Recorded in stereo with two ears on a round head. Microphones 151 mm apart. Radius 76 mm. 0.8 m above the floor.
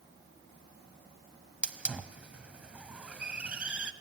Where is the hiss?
5° right (ahead or behind), 0.9 m.